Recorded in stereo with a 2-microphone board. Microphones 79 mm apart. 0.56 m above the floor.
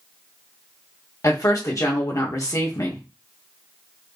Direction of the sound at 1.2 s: 45° left (ahead or behind).